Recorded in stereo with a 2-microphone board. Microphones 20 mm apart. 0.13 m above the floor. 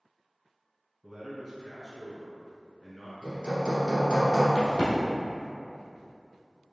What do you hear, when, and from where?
1.0 s a man speaking: 5° left (ahead or behind), 1.5 m
3.2 s hammering: 35° right (ahead or behind), 1.6 m
4.5 s a crack: 40° left (ahead or behind), 1.8 m